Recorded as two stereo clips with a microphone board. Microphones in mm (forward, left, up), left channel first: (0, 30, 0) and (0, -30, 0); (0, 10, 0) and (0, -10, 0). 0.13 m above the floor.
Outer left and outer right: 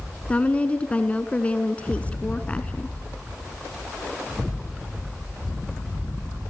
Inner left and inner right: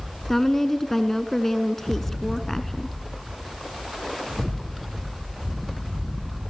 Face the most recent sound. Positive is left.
turn(degrees=20)  # may be behind; listen again after turning